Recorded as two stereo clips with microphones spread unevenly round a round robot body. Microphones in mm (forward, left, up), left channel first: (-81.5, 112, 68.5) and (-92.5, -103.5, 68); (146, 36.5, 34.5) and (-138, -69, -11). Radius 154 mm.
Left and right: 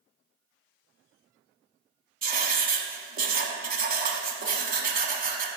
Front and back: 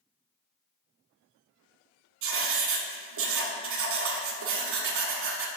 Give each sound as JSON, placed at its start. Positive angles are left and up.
{"t": 2.2, "sound": "writing", "azimuth_deg": -135, "distance_m": 0.9}